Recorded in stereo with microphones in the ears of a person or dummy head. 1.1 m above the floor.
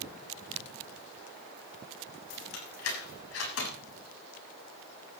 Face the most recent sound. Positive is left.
turn(degrees=80)